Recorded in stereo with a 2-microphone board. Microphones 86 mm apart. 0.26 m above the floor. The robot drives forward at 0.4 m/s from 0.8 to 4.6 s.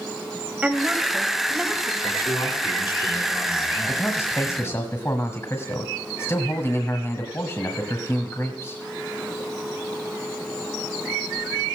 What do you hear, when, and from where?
0.6 s a woman speaking: 15° right (ahead or behind), 1.4 m
2.0 s a man speaking: 65° left (ahead or behind), 4 m; by 4.9 s 60° left (ahead or behind), 4 m
3.9 s a man speaking: 35° left (ahead or behind), 1.4 m